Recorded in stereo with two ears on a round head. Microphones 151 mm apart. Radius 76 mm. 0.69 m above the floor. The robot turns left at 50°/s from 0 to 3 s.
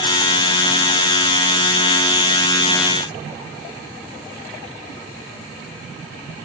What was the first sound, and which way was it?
Only background noise.